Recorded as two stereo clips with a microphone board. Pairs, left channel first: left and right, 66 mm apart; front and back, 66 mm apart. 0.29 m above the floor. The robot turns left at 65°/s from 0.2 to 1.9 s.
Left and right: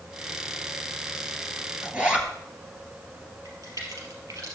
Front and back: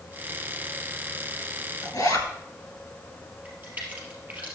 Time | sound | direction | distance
1.8 | a zipper | 15° right | 2 m
3.5 | a crack | 115° right | 3.5 m